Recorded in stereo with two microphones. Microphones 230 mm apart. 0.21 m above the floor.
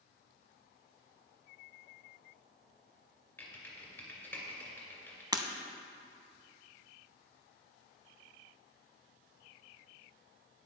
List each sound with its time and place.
3.4 s typing on a keyboard: 10° left (ahead or behind), 2 m
5.3 s breaking glass: 15° right (ahead or behind), 0.6 m